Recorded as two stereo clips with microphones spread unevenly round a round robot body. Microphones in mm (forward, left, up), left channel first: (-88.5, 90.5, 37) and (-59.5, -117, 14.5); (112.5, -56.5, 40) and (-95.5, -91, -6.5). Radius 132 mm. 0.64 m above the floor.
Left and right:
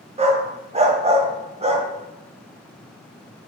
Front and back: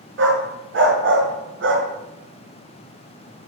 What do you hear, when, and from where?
0.2 s a dog barking: 145° right, 1.4 m